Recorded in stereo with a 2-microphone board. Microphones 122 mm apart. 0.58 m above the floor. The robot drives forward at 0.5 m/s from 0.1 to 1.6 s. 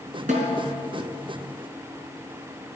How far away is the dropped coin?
No dropped coin in this recording.